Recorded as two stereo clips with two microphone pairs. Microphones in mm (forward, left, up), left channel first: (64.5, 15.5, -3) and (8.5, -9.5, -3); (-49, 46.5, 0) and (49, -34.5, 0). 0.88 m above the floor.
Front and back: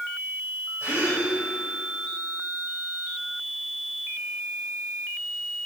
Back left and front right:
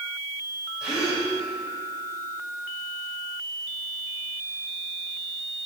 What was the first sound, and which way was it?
A gasp, 125° right.